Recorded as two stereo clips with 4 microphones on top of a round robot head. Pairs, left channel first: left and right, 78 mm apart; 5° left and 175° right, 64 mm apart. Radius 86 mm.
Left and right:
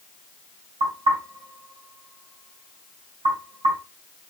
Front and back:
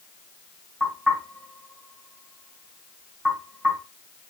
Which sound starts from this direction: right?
Knocking, at 0.8 s.